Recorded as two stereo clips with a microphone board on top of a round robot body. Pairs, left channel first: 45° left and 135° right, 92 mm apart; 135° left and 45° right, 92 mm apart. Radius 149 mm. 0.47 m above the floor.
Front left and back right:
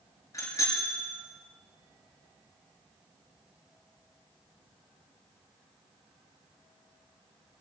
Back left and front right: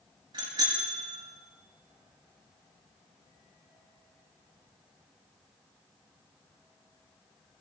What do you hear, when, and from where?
0.3 s a bicycle bell: 10° right, 5.5 m